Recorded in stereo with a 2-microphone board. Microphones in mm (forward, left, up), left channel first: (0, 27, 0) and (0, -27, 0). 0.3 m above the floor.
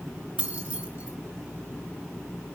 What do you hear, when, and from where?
0.4 s keys jangling: 20° right (ahead or behind), 2.5 m